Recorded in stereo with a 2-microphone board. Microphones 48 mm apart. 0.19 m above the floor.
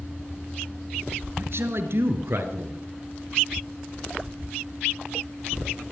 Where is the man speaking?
60° right (ahead or behind), 3 m.